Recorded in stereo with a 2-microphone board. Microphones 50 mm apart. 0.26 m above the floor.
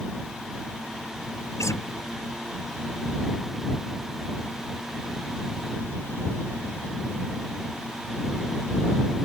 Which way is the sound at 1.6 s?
80° left.